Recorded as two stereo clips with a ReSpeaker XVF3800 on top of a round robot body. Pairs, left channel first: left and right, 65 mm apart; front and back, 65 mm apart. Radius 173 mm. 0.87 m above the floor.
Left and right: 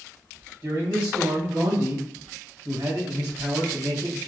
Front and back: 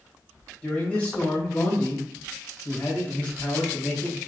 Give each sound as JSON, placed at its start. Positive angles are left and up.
{"t": 0.6, "sound": "a man speaking", "azimuth_deg": -70, "distance_m": 1.2}